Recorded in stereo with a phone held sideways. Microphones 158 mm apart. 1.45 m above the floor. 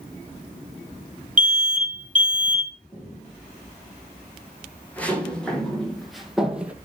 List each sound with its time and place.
1.4 s an alarm: 55° right (ahead or behind), 3 m
2.9 s footsteps: 15° left (ahead or behind), 6 m; by 6.8 s 10° right (ahead or behind), 2 m